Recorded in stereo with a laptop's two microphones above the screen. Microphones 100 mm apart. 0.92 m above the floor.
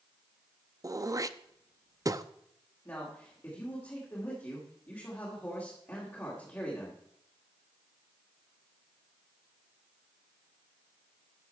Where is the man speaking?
25° left (ahead or behind), 2 m.